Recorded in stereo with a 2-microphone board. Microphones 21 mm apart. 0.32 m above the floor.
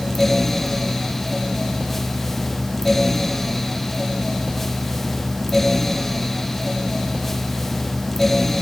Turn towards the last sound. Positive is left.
No sound to turn to.